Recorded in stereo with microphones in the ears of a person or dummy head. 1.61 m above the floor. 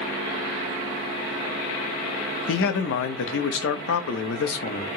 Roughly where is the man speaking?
Left.